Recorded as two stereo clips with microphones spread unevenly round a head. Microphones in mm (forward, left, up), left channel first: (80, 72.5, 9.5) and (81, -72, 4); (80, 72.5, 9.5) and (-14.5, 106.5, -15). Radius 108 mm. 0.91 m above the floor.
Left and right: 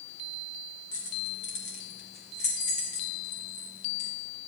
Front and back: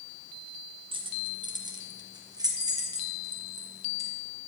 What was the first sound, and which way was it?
Keys jangling, 125° left.